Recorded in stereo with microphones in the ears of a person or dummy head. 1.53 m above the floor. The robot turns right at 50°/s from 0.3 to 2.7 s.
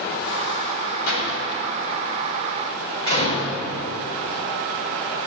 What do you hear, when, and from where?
1.1 s a door slam: 70° left (ahead or behind), 5 m; by 3.5 s 25° left (ahead or behind), 5 m